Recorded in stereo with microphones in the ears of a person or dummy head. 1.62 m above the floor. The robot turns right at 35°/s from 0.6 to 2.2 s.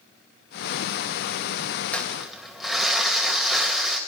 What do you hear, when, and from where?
1.9 s crumpling: 15° left (ahead or behind), 2.5 m; by 4.0 s 5° left (ahead or behind), 2.5 m